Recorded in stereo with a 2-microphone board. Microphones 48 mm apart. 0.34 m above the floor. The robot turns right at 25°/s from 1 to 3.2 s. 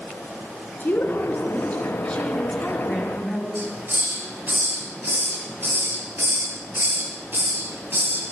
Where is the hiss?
50° right (ahead or behind), 5.5 m.